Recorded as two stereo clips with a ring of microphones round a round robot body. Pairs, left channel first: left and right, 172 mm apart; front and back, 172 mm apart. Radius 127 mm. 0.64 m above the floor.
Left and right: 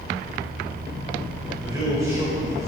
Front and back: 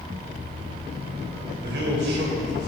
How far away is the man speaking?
About 3.5 m.